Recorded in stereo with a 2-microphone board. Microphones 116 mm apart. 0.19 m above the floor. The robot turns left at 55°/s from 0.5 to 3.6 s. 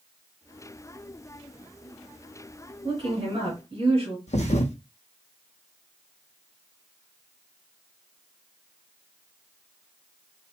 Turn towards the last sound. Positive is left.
turn(degrees=85)